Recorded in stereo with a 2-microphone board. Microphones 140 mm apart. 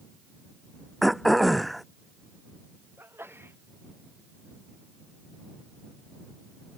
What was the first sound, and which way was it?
Throat clearing, centre (ahead or behind).